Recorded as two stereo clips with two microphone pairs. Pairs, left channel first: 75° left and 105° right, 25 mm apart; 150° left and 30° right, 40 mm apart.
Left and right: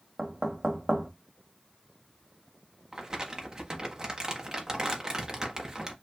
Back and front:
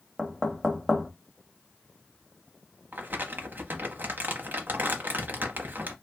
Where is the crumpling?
45° right, 0.8 m.